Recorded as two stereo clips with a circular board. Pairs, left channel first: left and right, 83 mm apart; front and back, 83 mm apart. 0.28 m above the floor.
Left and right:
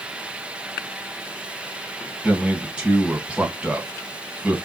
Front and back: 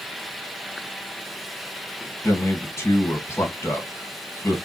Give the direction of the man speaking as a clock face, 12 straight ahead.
1 o'clock.